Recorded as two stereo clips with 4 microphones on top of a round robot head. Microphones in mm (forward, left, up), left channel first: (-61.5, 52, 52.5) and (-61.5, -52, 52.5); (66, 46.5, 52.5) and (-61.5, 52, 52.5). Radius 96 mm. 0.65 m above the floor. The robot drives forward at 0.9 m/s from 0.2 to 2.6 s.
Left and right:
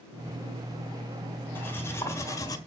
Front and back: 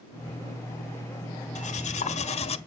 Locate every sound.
1.6 s cutlery clinking: 15° left, 1.6 m; by 2.6 s 35° left, 0.8 m